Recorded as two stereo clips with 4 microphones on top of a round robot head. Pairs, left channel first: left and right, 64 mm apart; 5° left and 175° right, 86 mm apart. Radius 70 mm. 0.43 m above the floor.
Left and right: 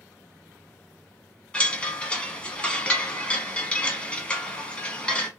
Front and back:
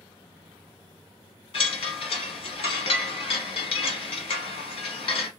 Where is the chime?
15° left, 1.0 m.